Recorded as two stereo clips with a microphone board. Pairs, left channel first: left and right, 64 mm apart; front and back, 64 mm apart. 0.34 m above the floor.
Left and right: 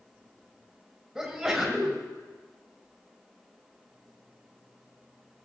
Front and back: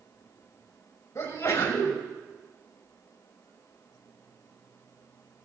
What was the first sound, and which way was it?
A sneeze, 10° right.